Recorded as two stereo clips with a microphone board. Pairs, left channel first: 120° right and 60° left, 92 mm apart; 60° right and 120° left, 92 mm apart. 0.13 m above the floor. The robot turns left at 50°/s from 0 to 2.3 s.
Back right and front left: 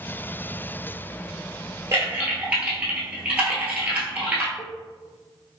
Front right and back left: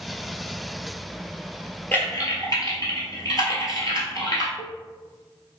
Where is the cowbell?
45° right, 1.2 m.